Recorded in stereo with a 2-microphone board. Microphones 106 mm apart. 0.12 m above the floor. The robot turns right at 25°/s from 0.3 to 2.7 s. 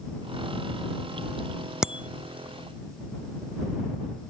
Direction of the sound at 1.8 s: 5° right (ahead or behind).